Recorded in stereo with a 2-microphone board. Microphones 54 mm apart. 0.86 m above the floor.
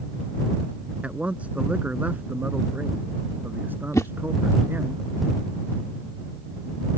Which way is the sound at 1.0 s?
25° right (ahead or behind).